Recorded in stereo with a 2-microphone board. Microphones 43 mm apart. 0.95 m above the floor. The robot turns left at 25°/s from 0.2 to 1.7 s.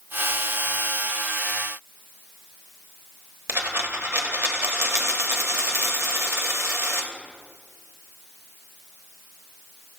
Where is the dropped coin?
70° right (ahead or behind), 1.3 m.